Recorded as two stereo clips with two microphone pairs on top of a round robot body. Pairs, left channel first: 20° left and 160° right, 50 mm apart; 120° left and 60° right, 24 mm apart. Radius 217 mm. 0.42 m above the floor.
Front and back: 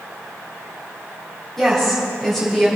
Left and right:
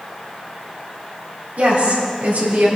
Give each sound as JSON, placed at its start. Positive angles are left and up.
{"t": 1.6, "sound": "a woman speaking", "azimuth_deg": -65, "distance_m": 3.5}